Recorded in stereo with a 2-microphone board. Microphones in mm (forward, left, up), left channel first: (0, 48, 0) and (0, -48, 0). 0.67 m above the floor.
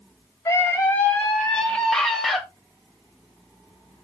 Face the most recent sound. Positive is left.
turn(degrees=0)  # may be behind; listen again after turning